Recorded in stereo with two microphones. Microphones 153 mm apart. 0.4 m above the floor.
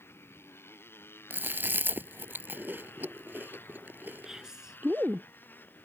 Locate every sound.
0.0 s a motorcycle: 15° left (ahead or behind); by 5.8 s 10° left (ahead or behind)
1.3 s chewing: 15° right (ahead or behind)
4.2 s whispering: 5° right (ahead or behind)